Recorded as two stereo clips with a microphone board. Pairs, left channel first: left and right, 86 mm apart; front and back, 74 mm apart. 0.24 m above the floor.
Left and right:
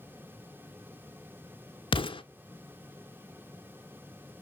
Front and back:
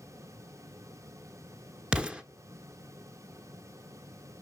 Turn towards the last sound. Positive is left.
turn(degrees=105)